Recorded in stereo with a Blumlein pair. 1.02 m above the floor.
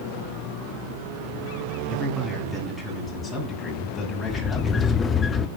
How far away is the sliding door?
About 0.9 m.